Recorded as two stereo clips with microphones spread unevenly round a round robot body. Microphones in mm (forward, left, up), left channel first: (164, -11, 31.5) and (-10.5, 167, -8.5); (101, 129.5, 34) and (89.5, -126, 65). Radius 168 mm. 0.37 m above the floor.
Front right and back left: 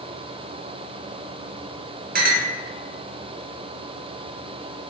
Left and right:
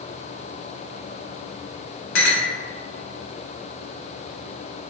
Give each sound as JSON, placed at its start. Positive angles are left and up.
{"t": 2.1, "sound": "a clink", "azimuth_deg": 95, "distance_m": 0.6}